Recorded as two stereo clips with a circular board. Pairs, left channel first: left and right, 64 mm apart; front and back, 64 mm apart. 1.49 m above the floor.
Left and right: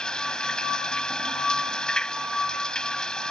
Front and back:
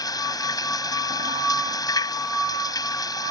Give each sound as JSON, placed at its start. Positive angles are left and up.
{"t": 0.0, "sound": "running water", "azimuth_deg": 10}